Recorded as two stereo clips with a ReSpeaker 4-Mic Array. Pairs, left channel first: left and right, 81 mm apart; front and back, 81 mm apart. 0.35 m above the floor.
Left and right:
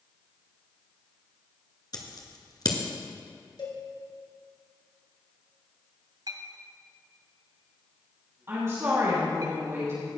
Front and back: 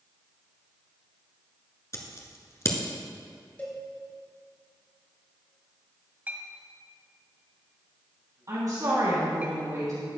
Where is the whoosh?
No whoosh in this recording.